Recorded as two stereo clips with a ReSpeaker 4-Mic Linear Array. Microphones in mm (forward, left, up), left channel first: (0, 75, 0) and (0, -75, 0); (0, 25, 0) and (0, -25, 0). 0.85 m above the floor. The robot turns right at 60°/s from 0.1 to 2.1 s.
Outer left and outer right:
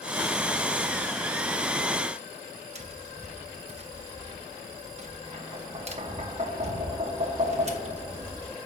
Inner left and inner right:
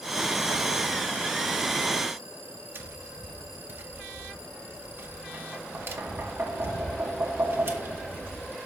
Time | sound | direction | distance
2.8 | tapping | 45° right (ahead or behind) | 1.0 m